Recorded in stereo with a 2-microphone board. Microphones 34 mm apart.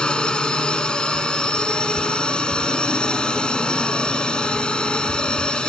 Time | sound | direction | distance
0.0 | a drone | 25° left (ahead or behind) | ?